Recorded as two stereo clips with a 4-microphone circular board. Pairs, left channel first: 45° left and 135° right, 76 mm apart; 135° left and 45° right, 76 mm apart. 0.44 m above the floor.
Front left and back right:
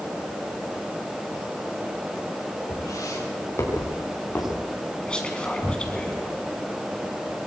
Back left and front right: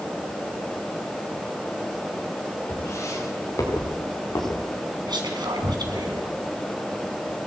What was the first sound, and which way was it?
Footsteps, 85° left.